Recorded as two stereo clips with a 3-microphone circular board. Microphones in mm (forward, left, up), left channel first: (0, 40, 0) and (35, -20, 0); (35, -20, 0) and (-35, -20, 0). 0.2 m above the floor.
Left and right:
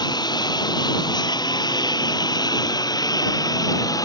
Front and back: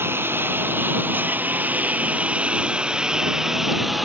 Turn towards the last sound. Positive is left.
turn(degrees=90)